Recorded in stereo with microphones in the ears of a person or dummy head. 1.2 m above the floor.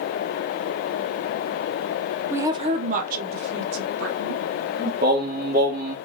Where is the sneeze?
I don't hear a sneeze.